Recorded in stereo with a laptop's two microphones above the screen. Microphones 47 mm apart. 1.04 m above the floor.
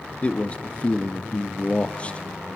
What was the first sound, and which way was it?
A man speaking, 25° left (ahead or behind).